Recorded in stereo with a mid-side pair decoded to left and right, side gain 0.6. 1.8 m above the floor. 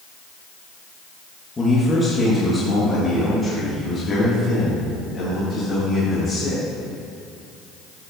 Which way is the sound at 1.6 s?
25° left.